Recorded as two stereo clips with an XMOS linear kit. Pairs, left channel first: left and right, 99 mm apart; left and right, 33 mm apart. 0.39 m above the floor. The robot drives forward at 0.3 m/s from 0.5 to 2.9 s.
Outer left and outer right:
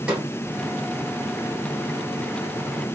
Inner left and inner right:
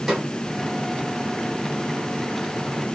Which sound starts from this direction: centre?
A snare drum, at 0.1 s.